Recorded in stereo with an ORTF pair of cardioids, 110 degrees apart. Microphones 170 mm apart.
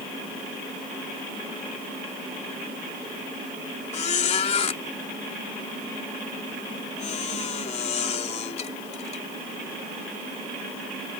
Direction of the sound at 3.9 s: 40° left.